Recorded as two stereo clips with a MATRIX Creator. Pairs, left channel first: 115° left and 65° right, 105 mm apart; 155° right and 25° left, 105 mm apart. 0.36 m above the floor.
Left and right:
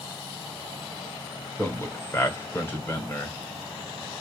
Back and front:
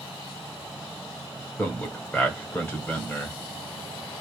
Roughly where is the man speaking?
Behind left.